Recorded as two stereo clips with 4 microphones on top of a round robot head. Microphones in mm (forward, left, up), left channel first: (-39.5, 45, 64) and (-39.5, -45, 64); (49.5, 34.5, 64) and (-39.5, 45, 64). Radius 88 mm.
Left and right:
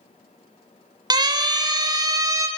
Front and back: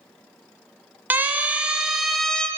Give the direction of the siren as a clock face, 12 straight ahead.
4 o'clock.